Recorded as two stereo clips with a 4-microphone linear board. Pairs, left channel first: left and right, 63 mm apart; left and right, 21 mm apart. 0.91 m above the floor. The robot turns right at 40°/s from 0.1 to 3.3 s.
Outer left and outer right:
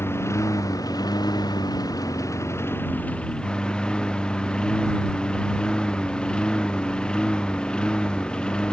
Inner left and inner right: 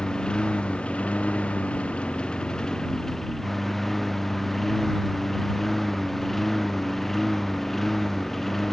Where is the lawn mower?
35° left; by 8.7 s 165° left.